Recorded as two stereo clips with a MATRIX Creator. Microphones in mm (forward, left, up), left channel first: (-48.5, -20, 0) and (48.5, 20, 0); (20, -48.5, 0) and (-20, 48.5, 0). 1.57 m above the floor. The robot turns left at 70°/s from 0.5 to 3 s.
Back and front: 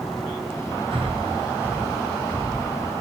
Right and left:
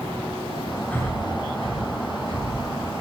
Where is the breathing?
5° left, 1.0 m; by 2.7 s 120° right, 1.0 m.